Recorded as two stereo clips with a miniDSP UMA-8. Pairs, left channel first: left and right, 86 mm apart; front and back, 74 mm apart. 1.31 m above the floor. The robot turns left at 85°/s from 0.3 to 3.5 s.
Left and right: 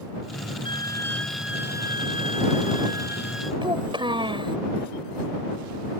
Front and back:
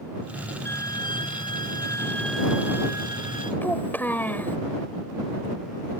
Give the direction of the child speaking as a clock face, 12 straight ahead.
2 o'clock.